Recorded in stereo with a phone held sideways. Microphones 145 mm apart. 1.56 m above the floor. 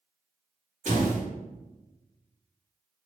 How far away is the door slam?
About 1.6 m.